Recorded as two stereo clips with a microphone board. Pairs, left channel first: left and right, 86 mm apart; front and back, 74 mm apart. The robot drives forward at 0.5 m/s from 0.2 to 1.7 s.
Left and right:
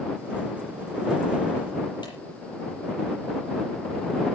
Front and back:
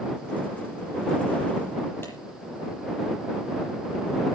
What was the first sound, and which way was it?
A clap, 55° left.